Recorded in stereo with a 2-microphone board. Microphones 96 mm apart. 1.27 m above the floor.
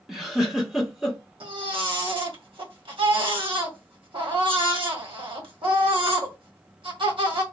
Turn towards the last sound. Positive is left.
turn(degrees=-60)  # may be behind; listen again after turning